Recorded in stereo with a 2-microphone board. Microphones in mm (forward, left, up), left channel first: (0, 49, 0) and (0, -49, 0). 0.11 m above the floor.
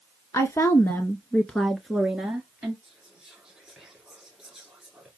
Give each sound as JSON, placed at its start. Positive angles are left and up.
{"t": 0.3, "sound": "a woman speaking", "side_deg": 30, "distance_m": 1.3}
{"t": 2.8, "sound": "whispering", "side_deg": -5, "distance_m": 2.0}